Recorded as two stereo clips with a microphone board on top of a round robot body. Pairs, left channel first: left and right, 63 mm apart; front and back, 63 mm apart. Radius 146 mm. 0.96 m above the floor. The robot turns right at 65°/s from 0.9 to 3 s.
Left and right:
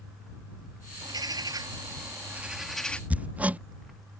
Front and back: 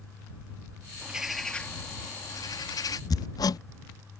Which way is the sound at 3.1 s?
20° right.